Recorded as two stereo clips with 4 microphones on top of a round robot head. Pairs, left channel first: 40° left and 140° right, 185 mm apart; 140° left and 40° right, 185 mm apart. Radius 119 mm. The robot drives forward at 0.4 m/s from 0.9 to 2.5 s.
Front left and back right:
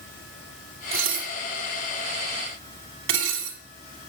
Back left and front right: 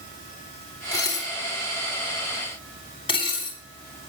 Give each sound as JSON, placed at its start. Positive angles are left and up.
{"t": 0.9, "sound": "dishes clattering", "azimuth_deg": -150, "distance_m": 2.0}